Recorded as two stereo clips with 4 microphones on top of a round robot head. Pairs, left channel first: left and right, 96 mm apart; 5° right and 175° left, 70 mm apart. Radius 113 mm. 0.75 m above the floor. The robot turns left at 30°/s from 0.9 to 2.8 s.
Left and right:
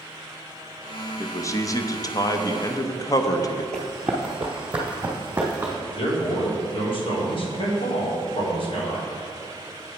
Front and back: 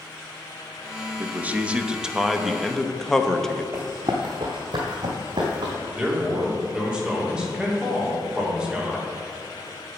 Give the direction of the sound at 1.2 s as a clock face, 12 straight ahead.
8 o'clock.